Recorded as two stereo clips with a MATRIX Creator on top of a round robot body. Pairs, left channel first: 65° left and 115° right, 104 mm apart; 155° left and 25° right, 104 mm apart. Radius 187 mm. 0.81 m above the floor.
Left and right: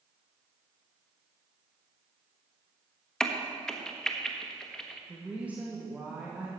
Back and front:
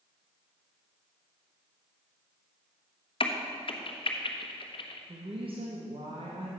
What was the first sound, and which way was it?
A crack, 150° left.